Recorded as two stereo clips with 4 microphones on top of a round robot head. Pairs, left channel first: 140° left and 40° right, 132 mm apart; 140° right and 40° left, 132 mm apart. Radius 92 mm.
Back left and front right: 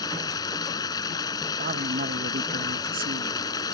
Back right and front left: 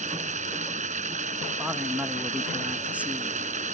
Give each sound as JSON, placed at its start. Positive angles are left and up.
{"t": 0.0, "sound": "running water", "azimuth_deg": 75}
{"t": 1.6, "sound": "a man speaking", "azimuth_deg": -40}